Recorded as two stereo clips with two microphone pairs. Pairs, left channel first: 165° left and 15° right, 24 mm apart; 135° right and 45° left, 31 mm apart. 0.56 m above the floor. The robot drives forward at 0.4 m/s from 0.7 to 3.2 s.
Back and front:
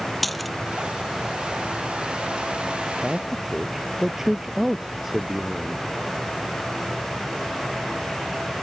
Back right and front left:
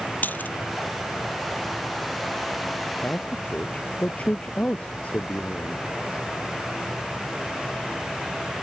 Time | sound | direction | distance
0.2 | a dropped coin | 110° right | ?
3.0 | a man speaking | 90° right | ?